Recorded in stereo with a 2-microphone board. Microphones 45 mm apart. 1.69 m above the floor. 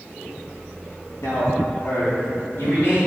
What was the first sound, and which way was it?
A man speaking, 75° left (ahead or behind).